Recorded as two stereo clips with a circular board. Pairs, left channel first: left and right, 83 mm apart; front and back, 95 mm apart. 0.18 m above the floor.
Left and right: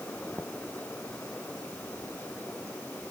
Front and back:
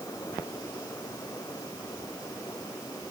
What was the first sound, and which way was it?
Only background noise.